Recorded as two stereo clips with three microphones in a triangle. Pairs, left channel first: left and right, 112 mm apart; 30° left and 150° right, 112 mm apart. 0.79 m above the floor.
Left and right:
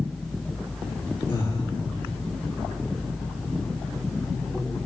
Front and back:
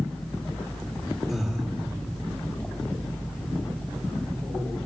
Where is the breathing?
120° left, 1.9 m.